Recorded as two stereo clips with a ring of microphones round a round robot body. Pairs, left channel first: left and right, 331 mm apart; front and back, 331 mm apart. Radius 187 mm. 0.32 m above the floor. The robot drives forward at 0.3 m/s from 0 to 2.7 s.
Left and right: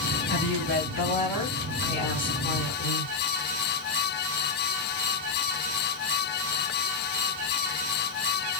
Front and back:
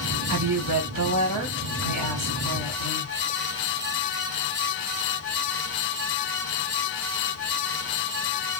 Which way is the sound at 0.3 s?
150° left.